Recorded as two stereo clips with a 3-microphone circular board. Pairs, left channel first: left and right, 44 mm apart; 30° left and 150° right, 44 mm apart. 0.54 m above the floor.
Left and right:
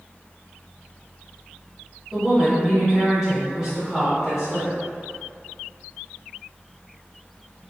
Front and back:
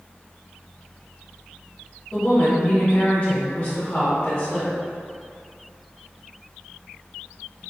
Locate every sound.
2.1 s a woman speaking: 20° right, 1.5 m